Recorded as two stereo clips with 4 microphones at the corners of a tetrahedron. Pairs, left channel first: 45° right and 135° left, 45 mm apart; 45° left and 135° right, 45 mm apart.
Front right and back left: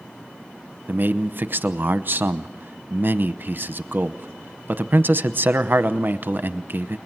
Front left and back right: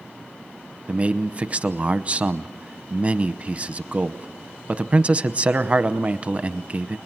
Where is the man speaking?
170° left, 0.9 m.